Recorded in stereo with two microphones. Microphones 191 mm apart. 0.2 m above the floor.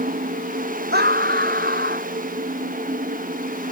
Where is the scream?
55° right (ahead or behind).